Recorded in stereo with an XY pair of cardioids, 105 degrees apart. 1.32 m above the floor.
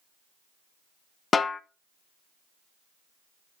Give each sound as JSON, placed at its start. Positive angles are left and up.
{"t": 1.3, "sound": "a snare drum", "azimuth_deg": 35, "distance_m": 0.7}